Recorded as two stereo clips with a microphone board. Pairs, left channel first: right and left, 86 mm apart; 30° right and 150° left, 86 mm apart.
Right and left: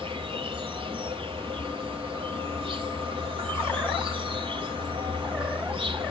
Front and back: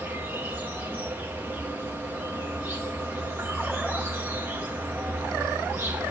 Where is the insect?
80° left, 1.8 m.